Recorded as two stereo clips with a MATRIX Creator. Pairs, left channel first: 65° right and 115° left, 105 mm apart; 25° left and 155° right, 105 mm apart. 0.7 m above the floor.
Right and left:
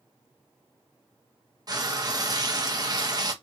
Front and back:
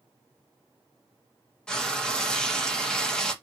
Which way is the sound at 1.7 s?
100° left.